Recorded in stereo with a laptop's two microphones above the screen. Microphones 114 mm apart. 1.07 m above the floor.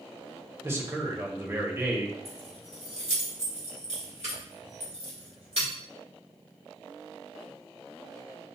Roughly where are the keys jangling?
Right.